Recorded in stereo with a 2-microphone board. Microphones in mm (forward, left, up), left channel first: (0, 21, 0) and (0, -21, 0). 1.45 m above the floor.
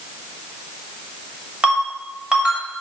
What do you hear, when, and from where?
1.6 s a ringtone: 20° right (ahead or behind), 2.5 m